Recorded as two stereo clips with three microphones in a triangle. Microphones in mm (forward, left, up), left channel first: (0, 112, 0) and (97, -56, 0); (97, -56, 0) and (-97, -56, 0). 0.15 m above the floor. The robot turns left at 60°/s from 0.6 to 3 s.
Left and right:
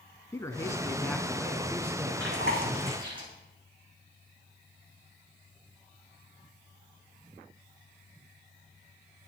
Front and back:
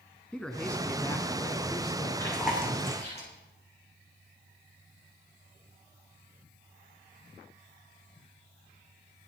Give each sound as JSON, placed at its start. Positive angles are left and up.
{"t": 0.3, "sound": "a man speaking", "azimuth_deg": 80, "distance_m": 1.7}
{"t": 2.2, "sound": "chewing", "azimuth_deg": -75, "distance_m": 7.0}